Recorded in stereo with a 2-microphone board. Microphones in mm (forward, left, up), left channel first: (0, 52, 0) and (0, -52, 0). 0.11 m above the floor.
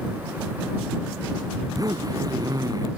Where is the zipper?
35° right (ahead or behind).